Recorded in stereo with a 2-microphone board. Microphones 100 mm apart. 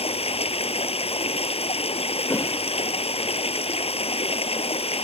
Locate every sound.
0.0 s running water: 85° left
2.3 s a whoosh: 30° left (ahead or behind)